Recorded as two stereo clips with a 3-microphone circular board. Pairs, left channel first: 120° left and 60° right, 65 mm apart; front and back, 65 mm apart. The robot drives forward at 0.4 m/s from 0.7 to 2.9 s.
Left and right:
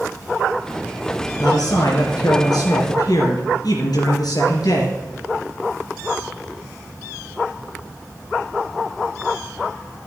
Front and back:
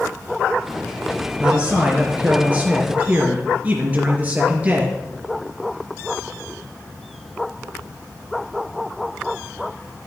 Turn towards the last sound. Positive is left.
turn(degrees=115)